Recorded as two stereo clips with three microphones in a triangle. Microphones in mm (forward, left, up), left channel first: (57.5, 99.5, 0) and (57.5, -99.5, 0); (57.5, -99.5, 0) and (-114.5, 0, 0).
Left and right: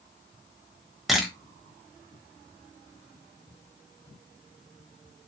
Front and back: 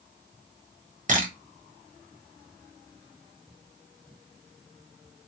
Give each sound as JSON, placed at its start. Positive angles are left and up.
{"t": 1.1, "sound": "a camera shutter", "azimuth_deg": 180, "distance_m": 0.9}